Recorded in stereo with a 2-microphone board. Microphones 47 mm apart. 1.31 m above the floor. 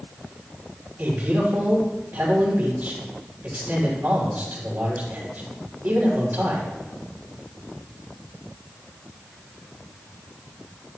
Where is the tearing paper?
I don't hear tearing paper.